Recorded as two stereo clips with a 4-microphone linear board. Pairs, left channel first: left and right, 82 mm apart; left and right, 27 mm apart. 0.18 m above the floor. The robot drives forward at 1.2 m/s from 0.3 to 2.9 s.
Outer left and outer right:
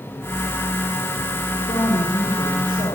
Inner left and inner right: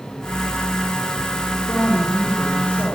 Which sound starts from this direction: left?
A woman speaking, at 1.7 s.